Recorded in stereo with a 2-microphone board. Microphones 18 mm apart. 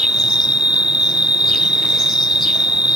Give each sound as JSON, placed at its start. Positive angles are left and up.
{"t": 0.0, "sound": "an insect", "side_deg": -75}